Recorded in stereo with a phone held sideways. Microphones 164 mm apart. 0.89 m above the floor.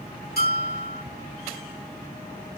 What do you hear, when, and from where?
0.4 s a bell: 75° left (ahead or behind), 1.2 m